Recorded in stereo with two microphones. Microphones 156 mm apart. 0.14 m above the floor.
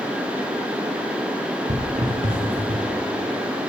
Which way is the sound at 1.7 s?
45° right (ahead or behind).